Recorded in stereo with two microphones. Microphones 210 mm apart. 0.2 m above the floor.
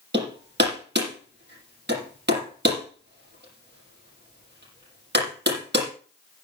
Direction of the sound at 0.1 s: 55° right (ahead or behind).